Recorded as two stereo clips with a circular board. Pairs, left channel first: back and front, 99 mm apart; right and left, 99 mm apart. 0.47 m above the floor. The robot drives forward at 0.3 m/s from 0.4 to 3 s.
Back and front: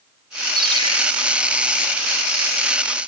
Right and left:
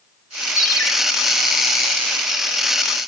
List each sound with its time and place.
0.6 s a ringtone: 40° right, 6 m